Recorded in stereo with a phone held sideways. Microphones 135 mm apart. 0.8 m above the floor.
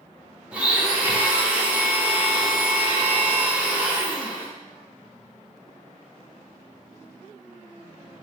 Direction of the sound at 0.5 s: 10° right (ahead or behind).